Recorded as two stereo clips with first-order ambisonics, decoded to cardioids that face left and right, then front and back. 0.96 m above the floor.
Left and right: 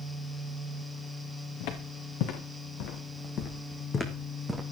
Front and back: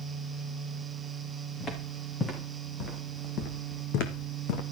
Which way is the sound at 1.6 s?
75° left.